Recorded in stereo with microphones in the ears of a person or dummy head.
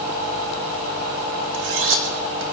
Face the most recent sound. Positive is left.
turn(degrees=-65)  # may be behind; listen again after turning